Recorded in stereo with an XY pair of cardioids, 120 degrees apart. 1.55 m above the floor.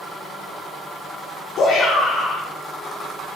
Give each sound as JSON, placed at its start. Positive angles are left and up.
{"t": 1.6, "sound": "a shout", "azimuth_deg": 60, "distance_m": 1.2}